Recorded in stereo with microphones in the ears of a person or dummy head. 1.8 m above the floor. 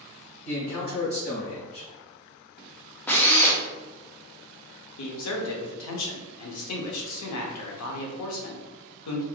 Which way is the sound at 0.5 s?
50° left (ahead or behind).